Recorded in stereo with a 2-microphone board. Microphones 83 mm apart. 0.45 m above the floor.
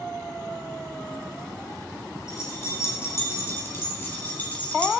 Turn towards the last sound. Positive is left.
turn(degrees=15)  # may be behind; listen again after turning